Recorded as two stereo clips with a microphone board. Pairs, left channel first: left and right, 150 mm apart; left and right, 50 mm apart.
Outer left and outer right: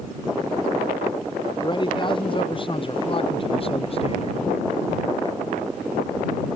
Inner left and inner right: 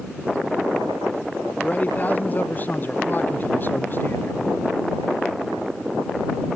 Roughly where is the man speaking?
Left.